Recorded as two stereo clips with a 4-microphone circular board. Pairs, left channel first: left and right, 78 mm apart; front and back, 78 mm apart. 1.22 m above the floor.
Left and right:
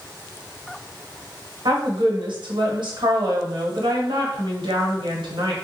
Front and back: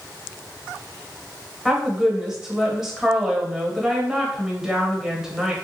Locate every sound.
1.6 s a woman speaking: 95° right, 1.1 m